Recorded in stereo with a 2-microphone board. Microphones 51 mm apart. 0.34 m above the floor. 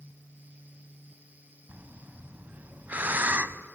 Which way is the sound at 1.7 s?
35° right (ahead or behind).